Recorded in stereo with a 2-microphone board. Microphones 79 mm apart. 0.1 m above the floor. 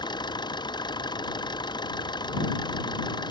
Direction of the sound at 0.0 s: 70° left (ahead or behind).